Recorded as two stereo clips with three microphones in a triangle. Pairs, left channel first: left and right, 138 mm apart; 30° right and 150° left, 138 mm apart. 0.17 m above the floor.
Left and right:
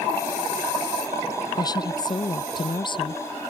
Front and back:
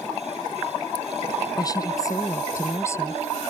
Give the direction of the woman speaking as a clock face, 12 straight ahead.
11 o'clock.